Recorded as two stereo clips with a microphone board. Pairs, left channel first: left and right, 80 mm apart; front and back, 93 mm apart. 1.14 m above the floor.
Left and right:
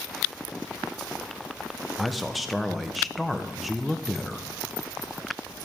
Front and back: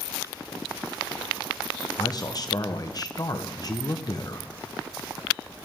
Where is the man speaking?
Straight ahead, 0.8 m.